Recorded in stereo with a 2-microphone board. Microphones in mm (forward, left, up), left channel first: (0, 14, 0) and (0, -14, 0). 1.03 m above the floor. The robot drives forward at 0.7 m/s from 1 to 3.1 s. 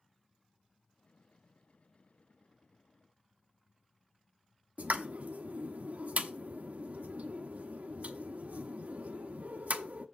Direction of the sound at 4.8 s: 65° right (ahead or behind).